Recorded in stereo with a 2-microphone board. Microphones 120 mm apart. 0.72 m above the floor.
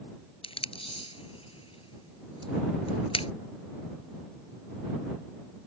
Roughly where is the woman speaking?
I don't hear a woman speaking.